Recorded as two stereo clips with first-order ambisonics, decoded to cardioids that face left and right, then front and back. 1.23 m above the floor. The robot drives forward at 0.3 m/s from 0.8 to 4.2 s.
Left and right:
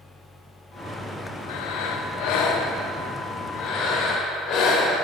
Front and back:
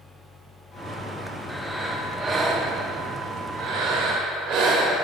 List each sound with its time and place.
1.5 s breathing: 90° left, 0.6 m; by 5.0 s 145° left, 1.1 m